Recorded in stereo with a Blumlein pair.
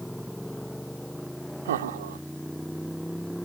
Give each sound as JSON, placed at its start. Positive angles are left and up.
{"t": 0.0, "sound": "a motorcycle", "azimuth_deg": 0}
{"t": 1.6, "sound": "laughter", "azimuth_deg": -60}